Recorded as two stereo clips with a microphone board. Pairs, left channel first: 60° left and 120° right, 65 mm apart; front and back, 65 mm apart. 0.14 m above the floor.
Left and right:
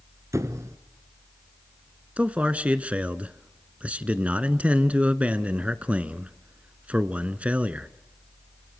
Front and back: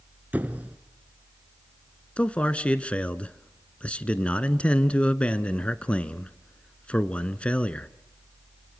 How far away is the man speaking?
About 1.3 m.